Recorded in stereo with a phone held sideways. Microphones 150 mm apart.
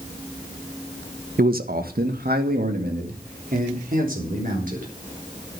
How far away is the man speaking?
About 1.2 m.